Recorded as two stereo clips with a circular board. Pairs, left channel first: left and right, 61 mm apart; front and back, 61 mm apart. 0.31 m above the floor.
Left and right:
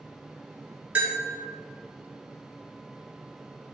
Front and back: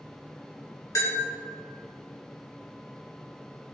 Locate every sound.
0.9 s a bell: 25° right, 3 m